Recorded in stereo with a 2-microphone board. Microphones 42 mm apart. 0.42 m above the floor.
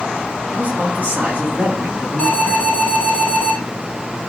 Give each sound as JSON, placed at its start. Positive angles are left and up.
{"t": 0.5, "sound": "a man speaking", "side_deg": -40, "distance_m": 4.0}
{"t": 2.2, "sound": "an alarm", "side_deg": 20, "distance_m": 3.0}